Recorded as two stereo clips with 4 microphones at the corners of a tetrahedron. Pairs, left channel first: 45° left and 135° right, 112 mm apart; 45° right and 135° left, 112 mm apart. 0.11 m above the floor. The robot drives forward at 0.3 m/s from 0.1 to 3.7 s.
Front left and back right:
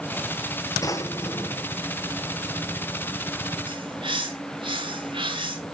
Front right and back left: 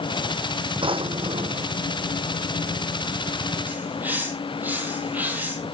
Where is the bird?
155° right, 2.5 m.